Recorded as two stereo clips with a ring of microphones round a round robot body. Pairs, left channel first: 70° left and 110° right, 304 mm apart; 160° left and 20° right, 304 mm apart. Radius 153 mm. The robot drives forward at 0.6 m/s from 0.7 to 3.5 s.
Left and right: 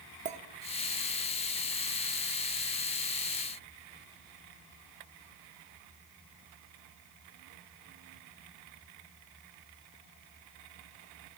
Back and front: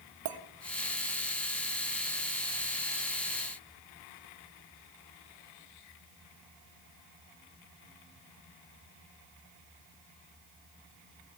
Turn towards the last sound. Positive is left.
turn(degrees=-150)